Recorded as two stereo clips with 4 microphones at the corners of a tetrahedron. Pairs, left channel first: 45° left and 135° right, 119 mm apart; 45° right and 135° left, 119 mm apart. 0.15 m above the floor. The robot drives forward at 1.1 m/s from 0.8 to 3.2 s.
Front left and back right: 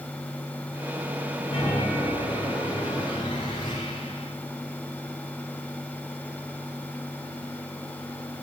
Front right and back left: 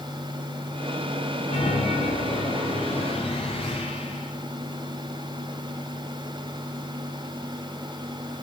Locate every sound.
1.5 s a chime: 5° right, 9 m